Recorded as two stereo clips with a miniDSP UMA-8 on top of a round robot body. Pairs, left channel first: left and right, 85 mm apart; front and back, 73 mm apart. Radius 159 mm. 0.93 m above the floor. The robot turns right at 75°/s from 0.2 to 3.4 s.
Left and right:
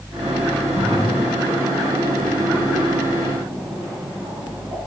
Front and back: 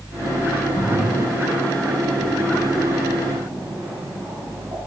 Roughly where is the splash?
Ahead left.